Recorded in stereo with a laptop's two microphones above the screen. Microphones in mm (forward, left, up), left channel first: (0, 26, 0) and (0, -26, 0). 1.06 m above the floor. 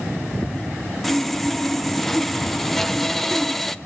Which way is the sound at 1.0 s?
5° left (ahead or behind).